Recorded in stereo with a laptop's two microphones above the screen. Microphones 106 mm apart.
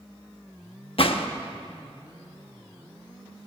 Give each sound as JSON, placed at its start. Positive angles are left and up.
{"t": 1.0, "sound": "a gunshot", "side_deg": 60, "distance_m": 0.8}